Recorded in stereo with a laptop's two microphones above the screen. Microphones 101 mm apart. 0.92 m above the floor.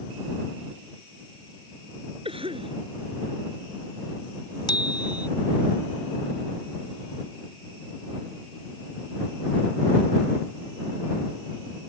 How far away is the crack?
No crack in this recording.